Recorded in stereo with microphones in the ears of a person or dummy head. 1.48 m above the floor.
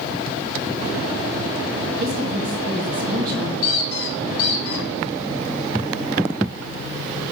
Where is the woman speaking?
40° right (ahead or behind), 3 m.